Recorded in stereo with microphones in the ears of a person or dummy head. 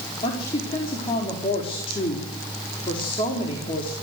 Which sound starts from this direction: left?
A woman speaking, at 0.2 s.